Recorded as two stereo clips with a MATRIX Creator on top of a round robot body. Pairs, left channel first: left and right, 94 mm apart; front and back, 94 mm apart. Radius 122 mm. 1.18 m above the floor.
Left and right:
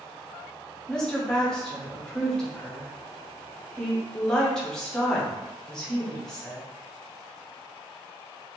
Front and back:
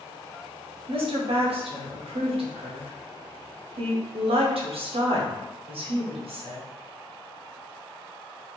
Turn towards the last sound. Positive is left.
turn(degrees=175)